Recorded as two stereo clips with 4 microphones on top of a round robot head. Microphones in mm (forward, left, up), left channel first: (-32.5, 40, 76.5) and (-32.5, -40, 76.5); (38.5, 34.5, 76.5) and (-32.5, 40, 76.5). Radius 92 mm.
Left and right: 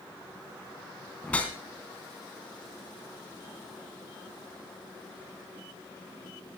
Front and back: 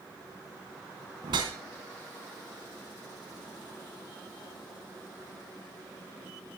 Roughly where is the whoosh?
Behind.